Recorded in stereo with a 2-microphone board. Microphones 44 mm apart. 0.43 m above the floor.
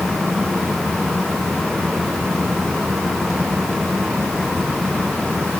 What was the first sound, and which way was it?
Only background noise.